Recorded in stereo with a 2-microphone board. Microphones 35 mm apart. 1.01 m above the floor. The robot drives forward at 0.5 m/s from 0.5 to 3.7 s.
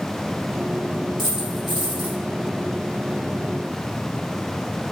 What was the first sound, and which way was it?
A dropped coin, centre (ahead or behind).